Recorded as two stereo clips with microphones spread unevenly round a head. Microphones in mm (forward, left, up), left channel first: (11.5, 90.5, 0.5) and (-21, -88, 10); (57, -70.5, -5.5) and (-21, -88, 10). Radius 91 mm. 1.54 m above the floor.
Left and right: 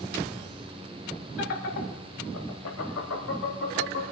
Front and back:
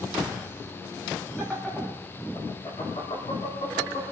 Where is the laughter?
105° left, 3 m; by 4.0 s 50° left, 4 m.